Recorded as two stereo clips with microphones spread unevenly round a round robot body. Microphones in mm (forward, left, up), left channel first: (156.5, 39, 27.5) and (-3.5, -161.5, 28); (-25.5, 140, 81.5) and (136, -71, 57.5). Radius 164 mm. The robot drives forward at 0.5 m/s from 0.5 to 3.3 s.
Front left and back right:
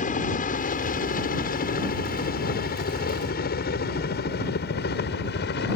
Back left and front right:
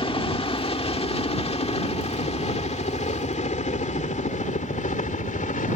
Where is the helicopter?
70° left; by 5.8 s 75° left.